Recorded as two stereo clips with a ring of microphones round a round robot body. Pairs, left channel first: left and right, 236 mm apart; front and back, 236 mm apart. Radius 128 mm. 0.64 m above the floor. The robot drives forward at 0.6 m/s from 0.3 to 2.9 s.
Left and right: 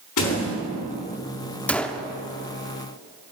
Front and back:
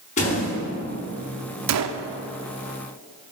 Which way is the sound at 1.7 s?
175° left.